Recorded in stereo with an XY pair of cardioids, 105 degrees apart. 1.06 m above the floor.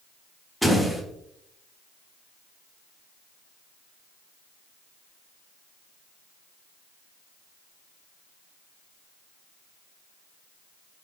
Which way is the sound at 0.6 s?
5° left.